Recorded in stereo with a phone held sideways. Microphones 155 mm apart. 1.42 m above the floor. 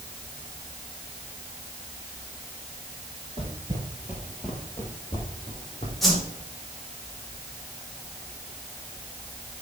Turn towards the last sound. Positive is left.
turn(degrees=0)  # may be behind; listen again after turning